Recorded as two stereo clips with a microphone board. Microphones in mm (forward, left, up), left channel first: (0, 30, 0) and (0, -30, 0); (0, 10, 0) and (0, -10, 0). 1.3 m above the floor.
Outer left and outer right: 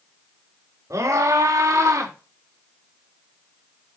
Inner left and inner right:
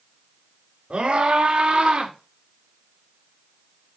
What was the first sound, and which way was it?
A scream, 60° right (ahead or behind).